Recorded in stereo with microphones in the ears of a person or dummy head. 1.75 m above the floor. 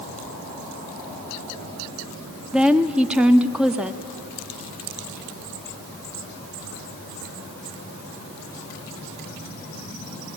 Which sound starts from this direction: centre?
A woman speaking, at 2.5 s.